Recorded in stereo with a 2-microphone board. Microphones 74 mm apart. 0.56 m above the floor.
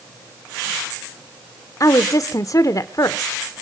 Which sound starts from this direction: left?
A woman speaking, at 1.8 s.